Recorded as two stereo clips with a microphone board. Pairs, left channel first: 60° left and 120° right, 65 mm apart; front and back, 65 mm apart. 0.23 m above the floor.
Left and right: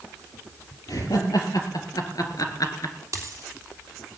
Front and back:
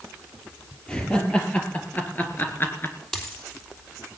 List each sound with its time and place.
0.9 s laughter: 75° left, 5 m; by 3.0 s 45° left, 3 m
3.1 s a dropped coin: 80° right, 3 m